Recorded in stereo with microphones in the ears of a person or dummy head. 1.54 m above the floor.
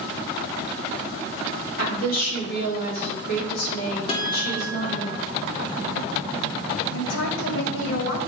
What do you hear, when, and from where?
1.8 s a woman speaking: 55° left (ahead or behind), 4 m
4.1 s a guitar: 35° left (ahead or behind), 1.8 m
6.9 s a woman speaking: 85° left, 1.9 m